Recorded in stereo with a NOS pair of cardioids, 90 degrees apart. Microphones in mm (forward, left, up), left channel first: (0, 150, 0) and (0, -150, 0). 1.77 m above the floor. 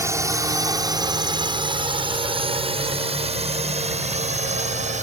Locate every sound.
0.0 s a drone: 10° right; by 5.0 s 25° right